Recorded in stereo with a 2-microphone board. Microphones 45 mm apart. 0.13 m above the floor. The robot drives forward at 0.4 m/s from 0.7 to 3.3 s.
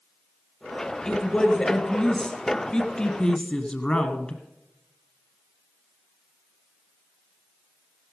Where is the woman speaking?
20° left (ahead or behind), 2 m; by 4.4 s 25° left (ahead or behind), 1.6 m.